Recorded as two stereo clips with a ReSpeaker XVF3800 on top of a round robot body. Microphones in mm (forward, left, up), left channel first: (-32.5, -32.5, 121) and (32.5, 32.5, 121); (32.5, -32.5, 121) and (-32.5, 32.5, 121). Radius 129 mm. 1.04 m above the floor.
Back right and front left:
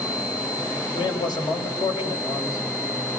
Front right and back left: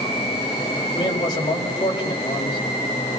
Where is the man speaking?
90° right, 5.5 m.